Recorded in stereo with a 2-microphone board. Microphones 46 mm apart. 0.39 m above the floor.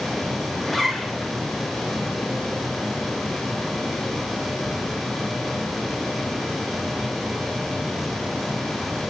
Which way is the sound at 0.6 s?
5° left (ahead or behind).